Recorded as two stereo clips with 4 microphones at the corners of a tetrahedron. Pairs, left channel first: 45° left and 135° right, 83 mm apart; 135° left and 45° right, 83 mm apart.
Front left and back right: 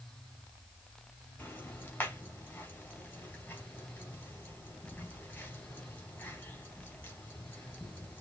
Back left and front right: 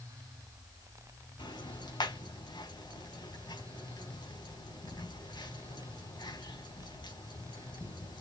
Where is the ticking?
115° left, 3 m.